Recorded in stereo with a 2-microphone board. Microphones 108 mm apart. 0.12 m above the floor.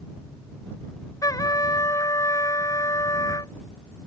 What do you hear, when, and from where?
1.2 s a trumpet: 35° left (ahead or behind)